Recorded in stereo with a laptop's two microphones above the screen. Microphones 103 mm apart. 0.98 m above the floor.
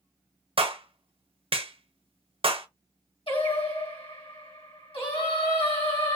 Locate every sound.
0.6 s a clap: 65° right (ahead or behind), 0.6 m
3.3 s singing: 65° left (ahead or behind), 1.8 m